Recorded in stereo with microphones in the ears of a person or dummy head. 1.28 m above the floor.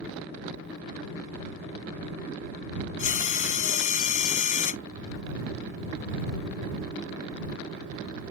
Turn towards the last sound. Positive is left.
turn(degrees=45)  # may be behind; listen again after turning